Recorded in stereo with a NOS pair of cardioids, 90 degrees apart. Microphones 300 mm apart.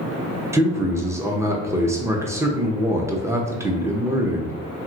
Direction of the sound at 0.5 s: 10° right.